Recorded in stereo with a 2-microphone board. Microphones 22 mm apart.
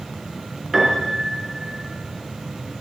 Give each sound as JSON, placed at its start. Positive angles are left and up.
{"t": 0.7, "sound": "a piano", "side_deg": -20, "distance_m": 2.5}